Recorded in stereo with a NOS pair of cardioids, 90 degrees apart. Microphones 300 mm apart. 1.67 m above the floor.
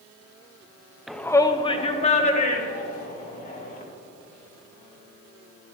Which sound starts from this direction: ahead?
A shout, at 1.1 s.